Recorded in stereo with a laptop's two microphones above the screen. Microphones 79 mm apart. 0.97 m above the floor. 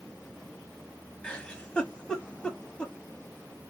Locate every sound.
1.2 s a giggle: 15° left (ahead or behind), 0.8 m